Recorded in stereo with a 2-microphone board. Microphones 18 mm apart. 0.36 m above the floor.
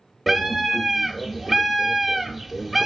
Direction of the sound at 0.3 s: Centre (ahead or behind).